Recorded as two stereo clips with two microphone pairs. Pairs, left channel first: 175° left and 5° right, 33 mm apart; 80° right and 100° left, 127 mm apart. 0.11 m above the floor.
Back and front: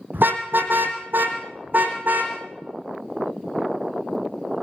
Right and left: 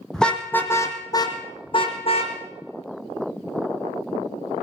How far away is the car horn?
About 3 m.